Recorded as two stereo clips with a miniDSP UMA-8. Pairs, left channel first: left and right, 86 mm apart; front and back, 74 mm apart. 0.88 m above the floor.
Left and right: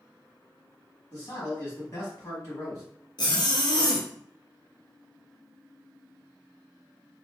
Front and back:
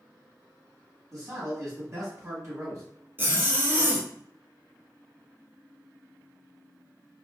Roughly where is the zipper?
Behind left.